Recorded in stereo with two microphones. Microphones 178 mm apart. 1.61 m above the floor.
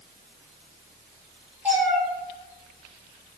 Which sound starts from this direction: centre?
A cat meowing, at 1.6 s.